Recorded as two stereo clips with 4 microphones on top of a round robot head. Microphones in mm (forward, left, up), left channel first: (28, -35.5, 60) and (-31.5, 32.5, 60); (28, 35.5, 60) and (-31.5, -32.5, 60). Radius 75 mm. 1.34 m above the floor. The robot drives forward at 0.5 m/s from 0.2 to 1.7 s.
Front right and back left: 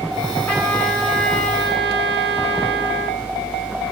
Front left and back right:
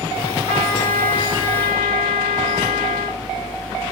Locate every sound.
0.5 s a trumpet: 30° left, 2 m; by 3.2 s 45° left, 1.6 m